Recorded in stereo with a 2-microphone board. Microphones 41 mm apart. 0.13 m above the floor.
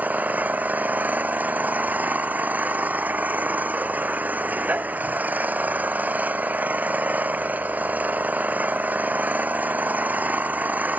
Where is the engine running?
45° right (ahead or behind).